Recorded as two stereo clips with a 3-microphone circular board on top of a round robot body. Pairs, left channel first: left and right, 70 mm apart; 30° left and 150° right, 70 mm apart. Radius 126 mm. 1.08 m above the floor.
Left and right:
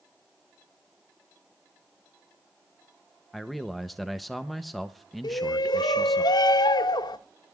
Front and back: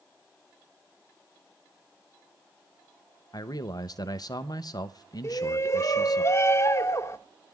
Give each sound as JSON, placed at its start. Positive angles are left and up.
{"t": 3.3, "sound": "a man speaking", "azimuth_deg": 0, "distance_m": 0.7}
{"t": 5.2, "sound": "a shout", "azimuth_deg": 80, "distance_m": 1.9}